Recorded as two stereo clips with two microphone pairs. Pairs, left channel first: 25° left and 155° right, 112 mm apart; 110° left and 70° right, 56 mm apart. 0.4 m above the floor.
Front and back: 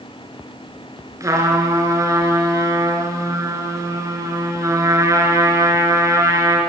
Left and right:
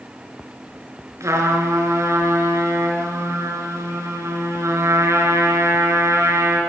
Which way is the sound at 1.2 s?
95° right.